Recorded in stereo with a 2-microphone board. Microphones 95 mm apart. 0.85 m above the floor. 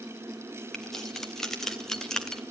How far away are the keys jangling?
About 4 m.